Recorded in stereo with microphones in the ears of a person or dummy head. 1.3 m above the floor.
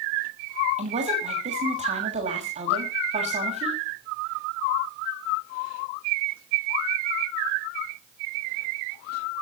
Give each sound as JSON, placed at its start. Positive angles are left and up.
{"t": 0.8, "sound": "a woman speaking", "side_deg": -35, "distance_m": 6.5}